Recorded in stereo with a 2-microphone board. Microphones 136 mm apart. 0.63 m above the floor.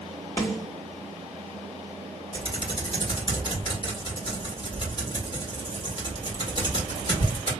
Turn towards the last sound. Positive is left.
turn(degrees=35)  # may be behind; listen again after turning